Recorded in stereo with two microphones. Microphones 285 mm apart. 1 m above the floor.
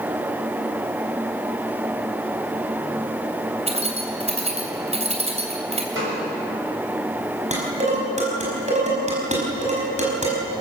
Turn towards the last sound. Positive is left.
turn(degrees=-25)  # may be behind; listen again after turning